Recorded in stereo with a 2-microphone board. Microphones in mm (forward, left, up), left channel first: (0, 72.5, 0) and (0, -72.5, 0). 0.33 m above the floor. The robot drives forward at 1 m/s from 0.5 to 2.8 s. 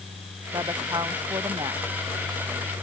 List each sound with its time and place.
0.5 s a woman speaking: 30° right (ahead or behind)